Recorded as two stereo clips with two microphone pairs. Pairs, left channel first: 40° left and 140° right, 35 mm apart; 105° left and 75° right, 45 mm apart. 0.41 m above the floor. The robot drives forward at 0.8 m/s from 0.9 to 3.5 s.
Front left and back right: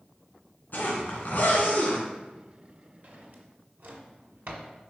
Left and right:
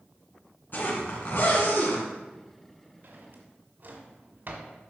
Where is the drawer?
105° right, 1.4 m; by 4.7 s 120° right, 1.5 m.